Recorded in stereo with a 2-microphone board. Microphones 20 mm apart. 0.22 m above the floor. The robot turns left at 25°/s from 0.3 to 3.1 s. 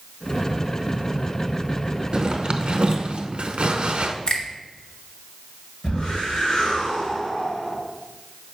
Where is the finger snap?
40° left (ahead or behind), 1.0 m.